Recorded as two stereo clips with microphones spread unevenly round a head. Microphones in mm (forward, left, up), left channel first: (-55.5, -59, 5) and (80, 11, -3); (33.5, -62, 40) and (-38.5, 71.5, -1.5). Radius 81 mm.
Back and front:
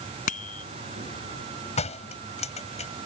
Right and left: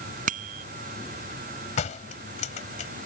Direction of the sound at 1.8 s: 105° right.